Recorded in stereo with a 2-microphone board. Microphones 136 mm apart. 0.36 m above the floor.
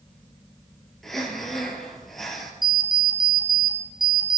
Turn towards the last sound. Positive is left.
turn(degrees=-35)  # may be behind; listen again after turning